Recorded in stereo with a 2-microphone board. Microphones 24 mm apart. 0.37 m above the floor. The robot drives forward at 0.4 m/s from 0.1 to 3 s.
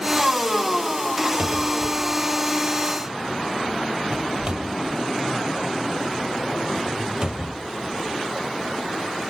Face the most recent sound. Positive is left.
turn(degrees=-35)  # may be behind; listen again after turning